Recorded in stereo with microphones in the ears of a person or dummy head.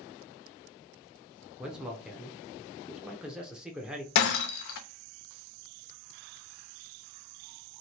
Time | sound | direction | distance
1.6 | a man speaking | 5° right (ahead or behind) | 0.7 m
4.2 | breaking glass | 60° left (ahead or behind) | 0.7 m